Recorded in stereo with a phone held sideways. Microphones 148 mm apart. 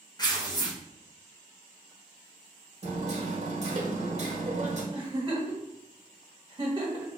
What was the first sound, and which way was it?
Tearing paper, 30° left (ahead or behind).